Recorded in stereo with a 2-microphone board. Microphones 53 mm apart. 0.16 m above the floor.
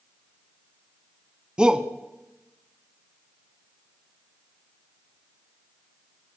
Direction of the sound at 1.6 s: 15° right (ahead or behind).